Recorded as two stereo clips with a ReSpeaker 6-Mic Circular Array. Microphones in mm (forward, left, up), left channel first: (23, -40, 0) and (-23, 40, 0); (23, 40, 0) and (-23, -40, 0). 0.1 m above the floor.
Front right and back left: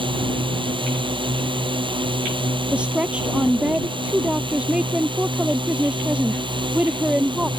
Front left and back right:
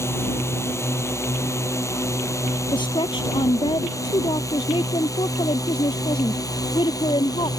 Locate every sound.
0.0 s a drone: 120° left; by 7.6 s 105° left
2.7 s a woman speaking: 45° left